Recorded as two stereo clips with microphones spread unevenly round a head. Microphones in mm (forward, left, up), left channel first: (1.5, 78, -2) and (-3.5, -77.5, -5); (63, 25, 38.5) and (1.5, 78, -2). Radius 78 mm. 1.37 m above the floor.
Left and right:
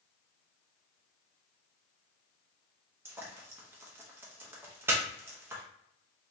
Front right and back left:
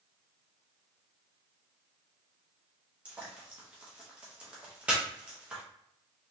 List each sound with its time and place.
3.0 s frying: 165° right, 0.8 m